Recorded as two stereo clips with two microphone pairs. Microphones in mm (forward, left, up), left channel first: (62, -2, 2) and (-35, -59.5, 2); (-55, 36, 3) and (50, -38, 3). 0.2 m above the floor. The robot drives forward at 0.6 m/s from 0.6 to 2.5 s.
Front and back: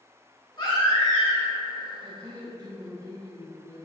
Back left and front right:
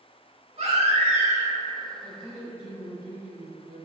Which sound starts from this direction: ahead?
A baby crying, at 0.6 s.